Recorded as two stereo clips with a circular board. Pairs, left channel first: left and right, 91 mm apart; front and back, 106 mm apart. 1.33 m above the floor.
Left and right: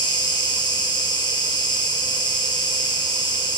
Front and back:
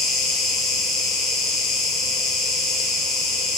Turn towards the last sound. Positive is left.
turn(degrees=90)